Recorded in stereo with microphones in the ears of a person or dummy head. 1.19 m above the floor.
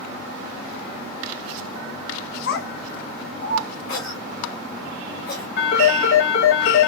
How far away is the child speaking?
About 0.5 m.